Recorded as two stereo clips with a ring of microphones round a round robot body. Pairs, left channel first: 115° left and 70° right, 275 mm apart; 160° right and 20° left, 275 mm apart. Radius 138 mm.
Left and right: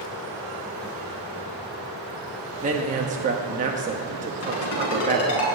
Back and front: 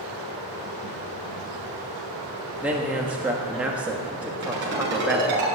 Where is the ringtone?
75° left, 5.5 m.